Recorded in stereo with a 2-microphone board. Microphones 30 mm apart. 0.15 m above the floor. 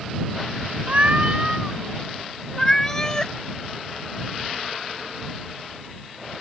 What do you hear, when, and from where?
0.9 s a cat meowing: 50° right (ahead or behind); by 3.3 s 20° left (ahead or behind)